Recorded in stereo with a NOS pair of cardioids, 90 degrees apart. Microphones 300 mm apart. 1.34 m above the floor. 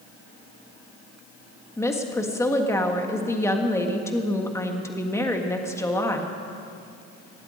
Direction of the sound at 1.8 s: 10° left.